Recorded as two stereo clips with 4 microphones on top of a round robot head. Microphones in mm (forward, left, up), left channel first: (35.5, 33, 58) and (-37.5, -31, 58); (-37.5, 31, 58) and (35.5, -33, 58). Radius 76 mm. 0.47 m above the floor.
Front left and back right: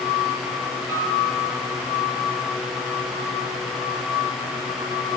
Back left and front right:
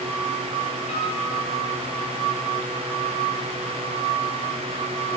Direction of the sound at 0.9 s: 160° left.